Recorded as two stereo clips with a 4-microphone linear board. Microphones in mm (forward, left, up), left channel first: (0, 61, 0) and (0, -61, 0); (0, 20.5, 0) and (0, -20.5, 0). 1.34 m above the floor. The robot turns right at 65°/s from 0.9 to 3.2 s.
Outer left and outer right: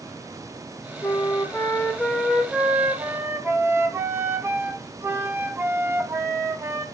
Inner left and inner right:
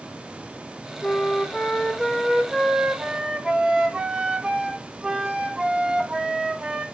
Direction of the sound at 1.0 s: 20° left (ahead or behind).